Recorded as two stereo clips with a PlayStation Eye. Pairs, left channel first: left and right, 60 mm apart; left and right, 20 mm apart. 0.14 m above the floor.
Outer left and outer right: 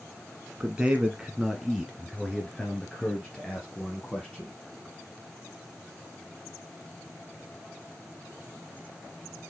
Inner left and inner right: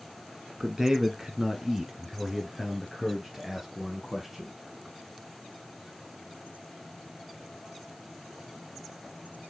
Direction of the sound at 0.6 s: 20° right (ahead or behind).